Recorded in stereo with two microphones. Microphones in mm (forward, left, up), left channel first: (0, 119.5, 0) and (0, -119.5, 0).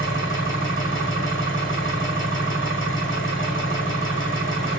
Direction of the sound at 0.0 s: 55° left (ahead or behind).